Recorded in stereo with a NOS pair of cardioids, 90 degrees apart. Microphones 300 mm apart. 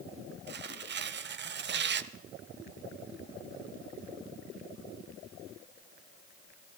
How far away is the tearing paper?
About 0.9 m.